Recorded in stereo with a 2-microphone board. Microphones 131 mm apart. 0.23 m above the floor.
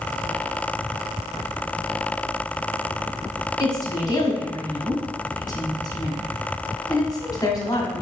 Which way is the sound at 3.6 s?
30° left (ahead or behind).